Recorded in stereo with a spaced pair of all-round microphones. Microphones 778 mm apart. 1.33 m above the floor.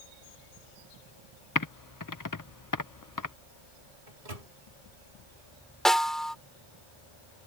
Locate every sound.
1.6 s typing on a keyboard: 25° left (ahead or behind)
4.1 s a microwave: 80° right
5.8 s a snare drum: centre (ahead or behind)